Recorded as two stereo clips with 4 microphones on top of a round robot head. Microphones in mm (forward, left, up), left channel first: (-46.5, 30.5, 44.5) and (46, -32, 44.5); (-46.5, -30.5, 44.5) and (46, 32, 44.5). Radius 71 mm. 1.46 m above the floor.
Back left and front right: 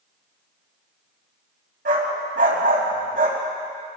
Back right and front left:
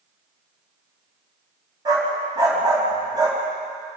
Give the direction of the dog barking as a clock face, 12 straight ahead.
1 o'clock.